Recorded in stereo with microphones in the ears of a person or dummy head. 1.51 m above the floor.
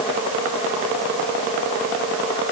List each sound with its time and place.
Only background noise.